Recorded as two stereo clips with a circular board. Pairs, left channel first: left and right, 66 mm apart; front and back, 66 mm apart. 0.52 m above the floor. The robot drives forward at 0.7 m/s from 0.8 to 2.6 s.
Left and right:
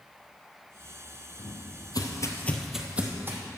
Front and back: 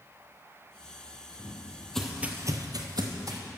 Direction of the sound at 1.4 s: 60° left.